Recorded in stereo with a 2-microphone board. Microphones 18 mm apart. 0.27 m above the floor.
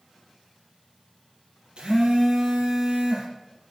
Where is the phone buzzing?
60° right (ahead or behind), 4 m.